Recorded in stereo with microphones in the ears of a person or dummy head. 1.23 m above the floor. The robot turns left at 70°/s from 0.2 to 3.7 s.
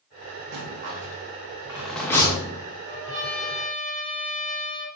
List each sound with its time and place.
0.5 s a rattle: 55° right (ahead or behind), 0.6 m; by 2.6 s 40° left (ahead or behind), 0.6 m
2.9 s a trumpet: 25° right, 1.5 m; by 4.9 s 85° right, 1.5 m